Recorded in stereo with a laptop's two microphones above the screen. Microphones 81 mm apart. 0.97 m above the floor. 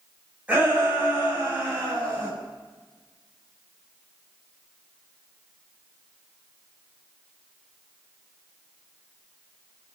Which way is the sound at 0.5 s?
15° right (ahead or behind).